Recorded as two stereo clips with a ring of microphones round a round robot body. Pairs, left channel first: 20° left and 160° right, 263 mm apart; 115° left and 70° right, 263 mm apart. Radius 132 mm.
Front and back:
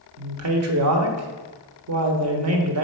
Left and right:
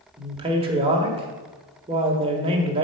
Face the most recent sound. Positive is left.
turn(degrees=-135)